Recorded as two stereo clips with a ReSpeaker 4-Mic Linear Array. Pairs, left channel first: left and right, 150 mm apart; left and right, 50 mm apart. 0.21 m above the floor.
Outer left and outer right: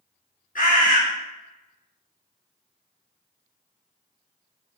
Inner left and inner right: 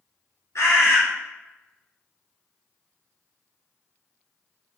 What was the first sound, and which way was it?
A bird, 70° left (ahead or behind).